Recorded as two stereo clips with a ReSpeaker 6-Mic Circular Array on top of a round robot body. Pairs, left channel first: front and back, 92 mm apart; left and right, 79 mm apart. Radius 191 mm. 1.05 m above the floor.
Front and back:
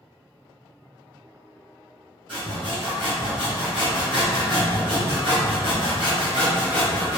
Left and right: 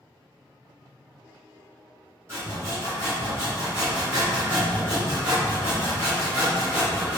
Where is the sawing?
145° right, 1.4 m.